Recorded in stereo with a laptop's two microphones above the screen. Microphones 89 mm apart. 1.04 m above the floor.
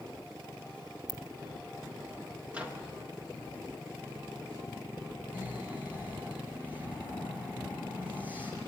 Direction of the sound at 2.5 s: 15° right (ahead or behind).